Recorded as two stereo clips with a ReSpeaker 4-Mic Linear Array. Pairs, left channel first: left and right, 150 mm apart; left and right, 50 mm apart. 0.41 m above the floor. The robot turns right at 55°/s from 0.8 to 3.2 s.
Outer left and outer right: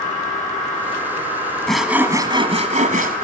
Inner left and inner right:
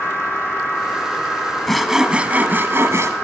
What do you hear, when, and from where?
1.7 s sawing: 175° left, 1.5 m; by 3.1 s 105° right, 1.5 m